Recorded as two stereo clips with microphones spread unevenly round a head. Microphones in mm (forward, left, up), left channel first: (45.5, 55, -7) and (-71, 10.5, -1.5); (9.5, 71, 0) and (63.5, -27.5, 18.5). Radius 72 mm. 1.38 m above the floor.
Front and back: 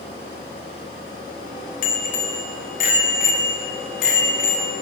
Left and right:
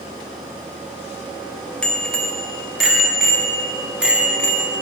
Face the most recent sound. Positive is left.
turn(degrees=15)